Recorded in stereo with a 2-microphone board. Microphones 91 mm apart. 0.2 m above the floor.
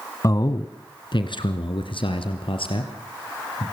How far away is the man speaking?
About 1.3 m.